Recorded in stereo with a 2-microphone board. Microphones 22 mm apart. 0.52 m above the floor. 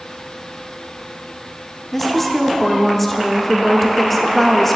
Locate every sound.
1.9 s a woman speaking: 5° left (ahead or behind), 0.7 m